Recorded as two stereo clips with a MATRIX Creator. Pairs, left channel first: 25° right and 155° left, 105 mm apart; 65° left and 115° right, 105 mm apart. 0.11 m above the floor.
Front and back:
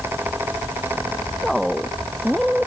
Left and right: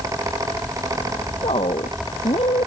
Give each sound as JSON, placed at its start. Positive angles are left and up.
{"t": 1.4, "sound": "a woman speaking", "azimuth_deg": 65}